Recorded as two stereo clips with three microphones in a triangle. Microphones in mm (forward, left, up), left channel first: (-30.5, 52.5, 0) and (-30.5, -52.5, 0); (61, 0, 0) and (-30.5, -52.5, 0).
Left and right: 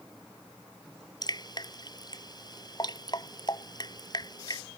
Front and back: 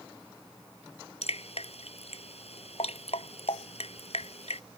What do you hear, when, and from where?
1.2 s dripping: 40° left